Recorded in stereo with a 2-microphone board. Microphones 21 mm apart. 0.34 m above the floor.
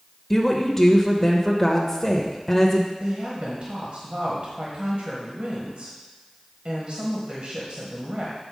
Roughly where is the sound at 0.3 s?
Centre.